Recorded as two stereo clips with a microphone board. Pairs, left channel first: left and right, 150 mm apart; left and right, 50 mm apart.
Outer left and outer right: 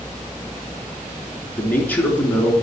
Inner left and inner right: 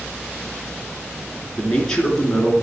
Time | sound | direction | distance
1.6 | a man speaking | 10° left (ahead or behind) | 3.5 m